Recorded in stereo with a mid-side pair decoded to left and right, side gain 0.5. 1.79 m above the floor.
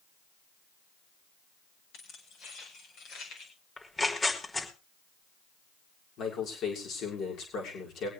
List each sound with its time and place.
1.9 s keys jangling: 70° left, 7 m; by 3.5 s 75° left, 6.5 m
3.8 s tearing paper: 25° left, 5 m
6.2 s a man speaking: 65° left, 6.5 m